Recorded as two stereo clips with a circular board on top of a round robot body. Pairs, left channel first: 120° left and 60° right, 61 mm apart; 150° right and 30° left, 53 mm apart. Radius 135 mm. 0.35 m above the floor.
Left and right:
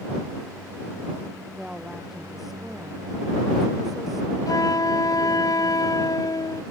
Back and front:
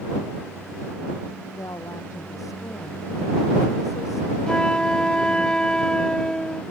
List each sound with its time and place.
1.6 s a woman speaking: 145° right
4.5 s a flute: 135° left